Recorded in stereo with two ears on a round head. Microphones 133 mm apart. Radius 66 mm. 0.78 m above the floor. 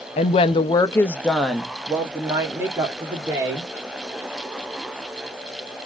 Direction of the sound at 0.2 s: 40° left (ahead or behind).